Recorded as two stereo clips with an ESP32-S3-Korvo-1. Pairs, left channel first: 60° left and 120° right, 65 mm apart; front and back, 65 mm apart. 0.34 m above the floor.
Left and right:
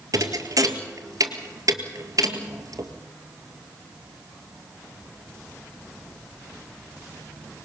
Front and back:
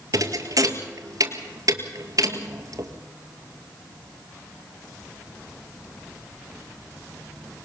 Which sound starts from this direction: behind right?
A thud, at 0.1 s.